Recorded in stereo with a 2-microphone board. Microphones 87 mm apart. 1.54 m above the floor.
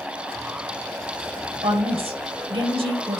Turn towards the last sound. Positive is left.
turn(degrees=-80)